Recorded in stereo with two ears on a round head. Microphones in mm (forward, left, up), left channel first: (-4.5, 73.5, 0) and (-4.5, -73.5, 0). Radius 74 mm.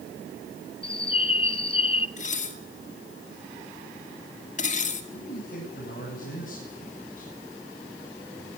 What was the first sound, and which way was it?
A bird, 35° left (ahead or behind).